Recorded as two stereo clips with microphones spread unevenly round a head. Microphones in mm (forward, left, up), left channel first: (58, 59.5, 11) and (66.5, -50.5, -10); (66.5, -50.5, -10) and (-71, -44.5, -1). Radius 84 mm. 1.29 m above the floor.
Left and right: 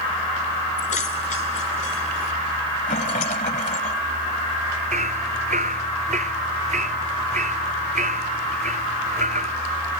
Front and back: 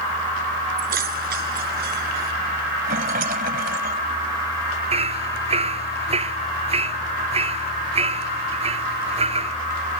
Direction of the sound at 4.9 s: 140° right.